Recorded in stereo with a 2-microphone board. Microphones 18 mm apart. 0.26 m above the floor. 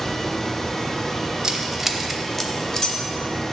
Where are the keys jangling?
35° right (ahead or behind), 0.7 m; by 3.0 s 35° left (ahead or behind), 0.9 m.